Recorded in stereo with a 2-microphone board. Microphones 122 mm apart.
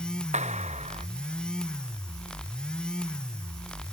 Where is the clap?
70° right (ahead or behind).